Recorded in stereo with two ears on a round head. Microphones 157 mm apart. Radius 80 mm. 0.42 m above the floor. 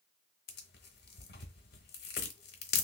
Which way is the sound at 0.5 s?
60° left (ahead or behind).